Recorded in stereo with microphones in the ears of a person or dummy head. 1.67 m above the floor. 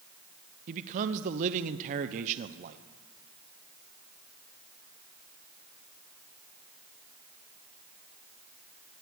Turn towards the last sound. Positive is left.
turn(degrees=-45)  # may be behind; listen again after turning